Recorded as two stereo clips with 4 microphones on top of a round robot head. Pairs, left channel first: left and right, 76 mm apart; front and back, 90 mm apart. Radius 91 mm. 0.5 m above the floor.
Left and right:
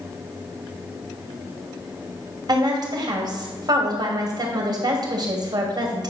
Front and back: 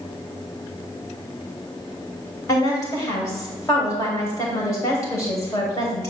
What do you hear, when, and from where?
2.5 s a woman speaking: 60° right, 3 m